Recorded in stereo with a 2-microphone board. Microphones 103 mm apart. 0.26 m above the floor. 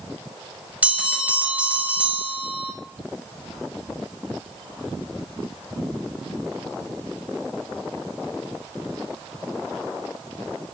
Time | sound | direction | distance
0.8 | a bell | 15° right (ahead or behind) | 0.9 m